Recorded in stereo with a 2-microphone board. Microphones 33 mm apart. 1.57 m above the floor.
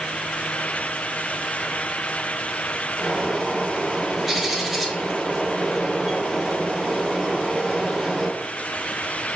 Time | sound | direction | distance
3.0 | a bird | centre (ahead or behind) | 1.3 m